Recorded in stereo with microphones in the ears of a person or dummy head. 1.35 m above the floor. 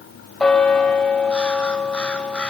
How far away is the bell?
About 1.6 m.